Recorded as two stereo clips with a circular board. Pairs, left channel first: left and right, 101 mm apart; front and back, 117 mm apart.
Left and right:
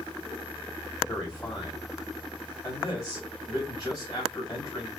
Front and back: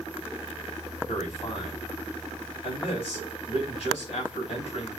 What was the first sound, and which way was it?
A man speaking, 40° left.